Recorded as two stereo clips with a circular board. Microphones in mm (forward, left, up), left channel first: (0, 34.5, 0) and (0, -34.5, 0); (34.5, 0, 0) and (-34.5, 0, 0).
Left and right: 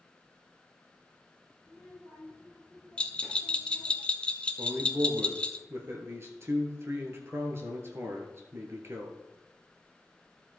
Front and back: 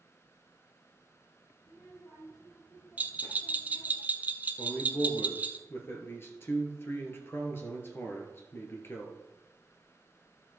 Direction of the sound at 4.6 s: 45° right.